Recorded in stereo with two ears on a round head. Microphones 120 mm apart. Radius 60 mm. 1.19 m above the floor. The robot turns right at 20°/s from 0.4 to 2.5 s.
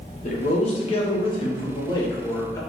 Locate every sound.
0.2 s a man speaking: 110° left, 0.7 m; by 2.6 s 155° left, 0.7 m